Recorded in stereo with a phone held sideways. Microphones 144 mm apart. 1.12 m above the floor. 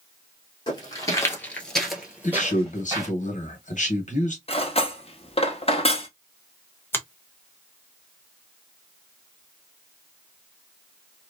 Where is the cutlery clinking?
45° left (ahead or behind), 0.7 m.